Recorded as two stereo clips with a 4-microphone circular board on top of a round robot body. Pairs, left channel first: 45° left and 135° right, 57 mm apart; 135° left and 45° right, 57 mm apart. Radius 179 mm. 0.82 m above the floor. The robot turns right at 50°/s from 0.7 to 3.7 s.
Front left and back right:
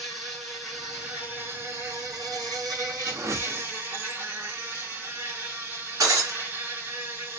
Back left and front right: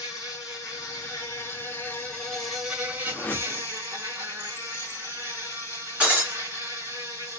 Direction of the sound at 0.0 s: 135° left.